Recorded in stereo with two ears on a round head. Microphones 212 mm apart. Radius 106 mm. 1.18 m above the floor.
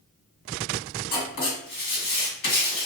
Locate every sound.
1.1 s writing: 55° left (ahead or behind), 1.9 m